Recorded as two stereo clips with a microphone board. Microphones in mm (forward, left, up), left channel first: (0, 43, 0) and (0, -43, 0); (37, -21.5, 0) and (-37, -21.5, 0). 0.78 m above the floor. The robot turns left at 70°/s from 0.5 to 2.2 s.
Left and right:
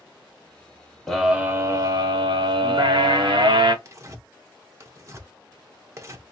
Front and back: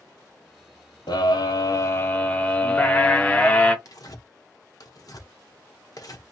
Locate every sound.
1.1 s a scream: 5° left, 1.5 m; by 3.8 s 75° right, 1.5 m
3.9 s tearing paper: 35° right, 0.9 m